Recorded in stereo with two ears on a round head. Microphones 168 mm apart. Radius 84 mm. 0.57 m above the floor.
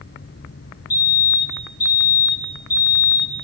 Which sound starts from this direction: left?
A fire alarm, at 0.9 s.